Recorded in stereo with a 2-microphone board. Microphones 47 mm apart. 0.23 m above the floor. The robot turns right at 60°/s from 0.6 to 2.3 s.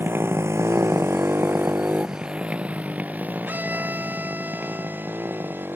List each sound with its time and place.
0.0 s a motorcycle: 55° right (ahead or behind); by 5.8 s 50° right (ahead or behind)
3.5 s a violin: 40° right (ahead or behind)